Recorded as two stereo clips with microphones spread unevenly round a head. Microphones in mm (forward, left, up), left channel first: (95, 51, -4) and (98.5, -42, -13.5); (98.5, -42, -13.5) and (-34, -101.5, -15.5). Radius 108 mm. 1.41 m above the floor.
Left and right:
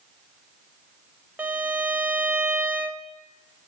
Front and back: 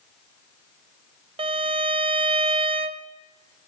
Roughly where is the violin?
Behind.